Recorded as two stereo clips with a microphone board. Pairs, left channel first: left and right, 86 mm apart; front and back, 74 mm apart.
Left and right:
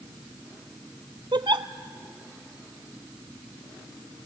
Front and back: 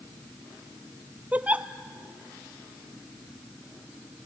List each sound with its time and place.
1.3 s a giggle: 110° right, 0.5 m